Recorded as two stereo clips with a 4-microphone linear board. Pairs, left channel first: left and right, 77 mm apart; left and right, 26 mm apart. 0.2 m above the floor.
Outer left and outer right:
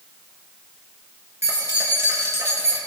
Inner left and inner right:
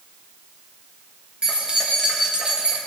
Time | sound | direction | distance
1.4 | keys jangling | 35° right (ahead or behind) | 2 m